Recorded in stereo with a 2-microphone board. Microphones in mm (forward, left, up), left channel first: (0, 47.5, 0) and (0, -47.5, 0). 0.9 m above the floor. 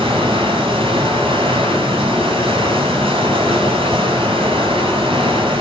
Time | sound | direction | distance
0.0 | running water | 75° right (ahead or behind) | 7.5 m